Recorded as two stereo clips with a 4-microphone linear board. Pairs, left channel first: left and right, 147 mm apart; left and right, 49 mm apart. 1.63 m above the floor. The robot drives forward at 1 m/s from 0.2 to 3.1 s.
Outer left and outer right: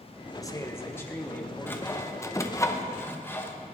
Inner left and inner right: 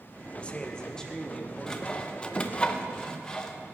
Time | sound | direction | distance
0.3 | a man speaking | 25° left (ahead or behind) | 1.0 m
1.7 | sawing | 15° left (ahead or behind) | 1.1 m